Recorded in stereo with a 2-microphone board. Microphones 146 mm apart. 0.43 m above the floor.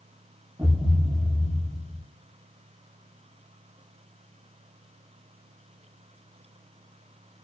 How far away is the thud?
About 9 m.